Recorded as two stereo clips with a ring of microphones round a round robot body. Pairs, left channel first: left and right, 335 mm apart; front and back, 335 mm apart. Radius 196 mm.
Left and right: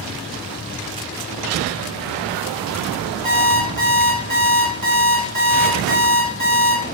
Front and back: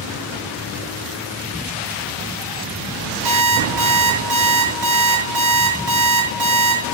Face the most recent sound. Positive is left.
turn(degrees=-155)